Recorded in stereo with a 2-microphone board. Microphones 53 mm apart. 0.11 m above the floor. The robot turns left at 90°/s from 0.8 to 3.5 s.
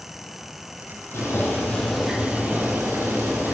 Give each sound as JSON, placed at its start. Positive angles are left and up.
{"t": 1.1, "sound": "boiling", "azimuth_deg": 75, "distance_m": 3.0}